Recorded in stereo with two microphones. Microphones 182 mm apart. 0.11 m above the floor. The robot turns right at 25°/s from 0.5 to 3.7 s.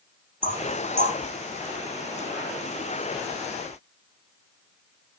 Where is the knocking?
55° right (ahead or behind), 2.0 m; by 1.2 s 60° right (ahead or behind), 2.0 m.